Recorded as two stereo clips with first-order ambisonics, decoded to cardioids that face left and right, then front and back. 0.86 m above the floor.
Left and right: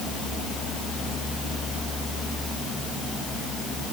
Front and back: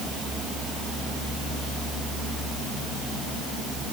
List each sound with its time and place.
Only background noise.